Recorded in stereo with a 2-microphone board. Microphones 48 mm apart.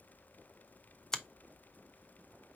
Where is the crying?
No crying in this recording.